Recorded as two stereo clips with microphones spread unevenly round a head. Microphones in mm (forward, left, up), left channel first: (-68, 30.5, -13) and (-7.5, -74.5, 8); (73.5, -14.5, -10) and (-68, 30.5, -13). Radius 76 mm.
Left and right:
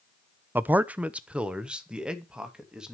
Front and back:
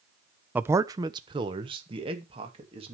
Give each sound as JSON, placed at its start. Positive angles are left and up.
{"t": 0.6, "sound": "a man speaking", "azimuth_deg": -120, "distance_m": 0.6}